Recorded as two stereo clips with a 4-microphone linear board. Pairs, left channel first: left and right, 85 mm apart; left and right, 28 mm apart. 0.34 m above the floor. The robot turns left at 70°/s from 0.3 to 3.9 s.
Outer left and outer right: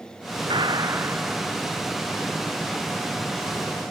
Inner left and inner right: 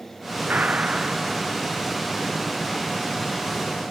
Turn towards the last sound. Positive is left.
turn(degrees=10)